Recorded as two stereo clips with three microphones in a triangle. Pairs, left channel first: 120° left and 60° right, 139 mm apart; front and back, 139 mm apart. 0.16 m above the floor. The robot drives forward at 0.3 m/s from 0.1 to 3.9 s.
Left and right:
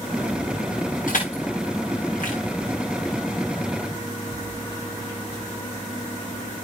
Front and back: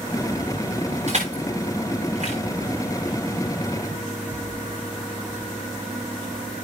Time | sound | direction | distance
1.1 | crushing | 145° left | 9.5 m